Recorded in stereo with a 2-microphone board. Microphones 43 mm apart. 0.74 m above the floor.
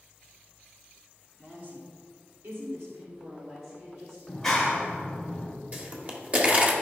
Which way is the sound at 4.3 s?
10° left (ahead or behind).